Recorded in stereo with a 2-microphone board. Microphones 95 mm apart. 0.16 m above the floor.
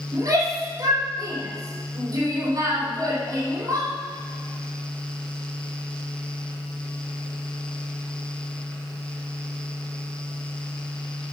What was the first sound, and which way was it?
A shout, 45° right (ahead or behind).